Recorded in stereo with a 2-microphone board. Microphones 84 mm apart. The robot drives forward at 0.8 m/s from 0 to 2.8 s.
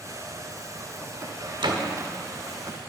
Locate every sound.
1.6 s a door slam: 65° right (ahead or behind), 0.9 m; by 1.8 s 60° right (ahead or behind), 1.0 m